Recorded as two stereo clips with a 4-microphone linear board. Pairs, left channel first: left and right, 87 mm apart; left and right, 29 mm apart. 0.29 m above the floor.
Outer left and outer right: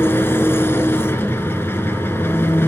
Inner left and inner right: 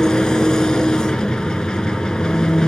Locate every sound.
0.0 s an engine running: 30° left (ahead or behind), 1.2 m